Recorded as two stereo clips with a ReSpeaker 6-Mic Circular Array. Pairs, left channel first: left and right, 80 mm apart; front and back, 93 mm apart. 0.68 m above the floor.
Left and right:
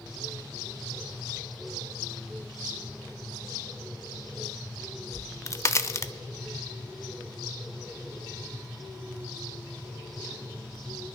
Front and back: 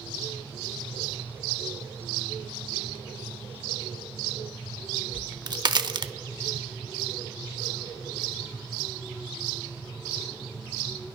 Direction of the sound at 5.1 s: 140° left.